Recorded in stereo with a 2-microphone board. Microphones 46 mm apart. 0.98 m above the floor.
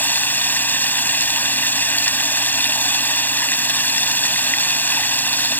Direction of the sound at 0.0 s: 45° left (ahead or behind).